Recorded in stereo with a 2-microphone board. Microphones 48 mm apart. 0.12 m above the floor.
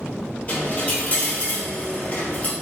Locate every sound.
0.5 s a dropped coin: 25° left (ahead or behind), 1.2 m